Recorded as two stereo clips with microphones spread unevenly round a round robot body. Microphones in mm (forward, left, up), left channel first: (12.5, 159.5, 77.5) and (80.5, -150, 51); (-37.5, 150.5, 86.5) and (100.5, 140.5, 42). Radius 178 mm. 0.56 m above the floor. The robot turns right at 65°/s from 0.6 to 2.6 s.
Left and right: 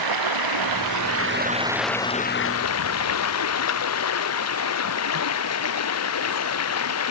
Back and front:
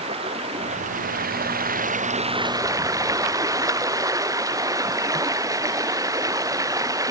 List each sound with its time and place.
0.0 s running water: 70° right; by 7.1 s 60° left